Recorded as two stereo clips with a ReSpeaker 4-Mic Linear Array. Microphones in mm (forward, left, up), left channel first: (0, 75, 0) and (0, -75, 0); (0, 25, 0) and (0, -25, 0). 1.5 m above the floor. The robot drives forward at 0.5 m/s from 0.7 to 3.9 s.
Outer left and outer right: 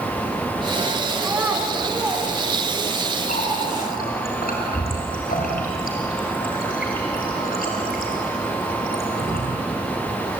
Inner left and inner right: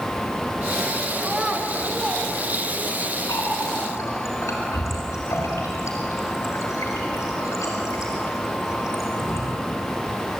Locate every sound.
1.2 s a child speaking: 15° right (ahead or behind), 3.5 m; by 3.0 s 10° right (ahead or behind), 4.5 m
3.3 s a running tap: 80° left, 4.5 m